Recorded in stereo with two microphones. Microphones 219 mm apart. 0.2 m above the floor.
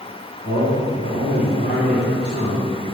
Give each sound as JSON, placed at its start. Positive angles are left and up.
{"t": 0.4, "sound": "a man speaking", "side_deg": 40, "distance_m": 2.5}